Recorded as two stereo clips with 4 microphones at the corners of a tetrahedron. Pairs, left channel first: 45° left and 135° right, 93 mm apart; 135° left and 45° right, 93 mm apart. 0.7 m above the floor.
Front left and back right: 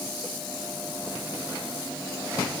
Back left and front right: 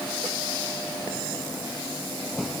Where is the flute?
I don't hear a flute.